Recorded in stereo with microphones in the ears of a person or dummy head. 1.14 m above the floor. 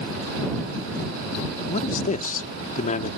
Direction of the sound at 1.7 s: 40° left (ahead or behind).